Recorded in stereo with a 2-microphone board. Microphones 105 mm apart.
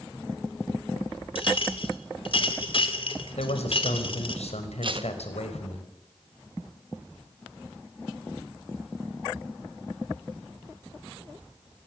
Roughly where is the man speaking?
Left.